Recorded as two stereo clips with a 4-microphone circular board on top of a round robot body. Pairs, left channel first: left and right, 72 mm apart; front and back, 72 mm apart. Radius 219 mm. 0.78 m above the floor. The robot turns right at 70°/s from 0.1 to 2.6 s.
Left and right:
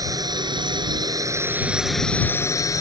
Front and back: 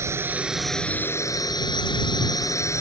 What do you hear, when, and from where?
0.0 s a drone: 130° right; by 2.8 s 45° left